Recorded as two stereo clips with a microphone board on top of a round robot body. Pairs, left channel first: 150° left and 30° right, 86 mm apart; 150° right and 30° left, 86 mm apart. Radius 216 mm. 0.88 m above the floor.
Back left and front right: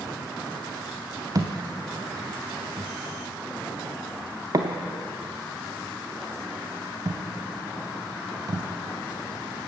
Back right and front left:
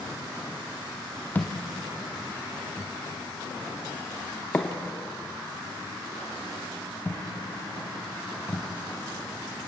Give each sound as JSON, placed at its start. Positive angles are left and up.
{"t": 1.4, "sound": "a thud", "azimuth_deg": -80, "distance_m": 0.6}